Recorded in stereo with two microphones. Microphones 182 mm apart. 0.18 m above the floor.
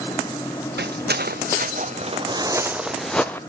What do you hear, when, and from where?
0.8 s footsteps: 75° right (ahead or behind), 1.2 m; by 3.4 s 10° left (ahead or behind), 1.0 m